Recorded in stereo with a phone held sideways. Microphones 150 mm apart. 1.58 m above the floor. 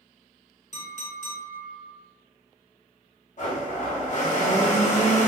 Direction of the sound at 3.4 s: 55° left (ahead or behind).